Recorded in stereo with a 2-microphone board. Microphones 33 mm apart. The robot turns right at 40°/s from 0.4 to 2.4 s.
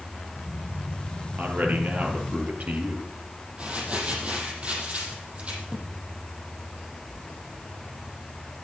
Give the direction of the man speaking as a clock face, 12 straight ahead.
3 o'clock.